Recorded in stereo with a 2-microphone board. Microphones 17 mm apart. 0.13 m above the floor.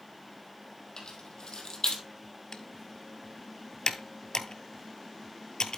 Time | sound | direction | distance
1.0 | keys jangling | 60° left (ahead or behind) | 2.5 m
2.5 | typing on a keyboard | 50° left (ahead or behind) | 0.6 m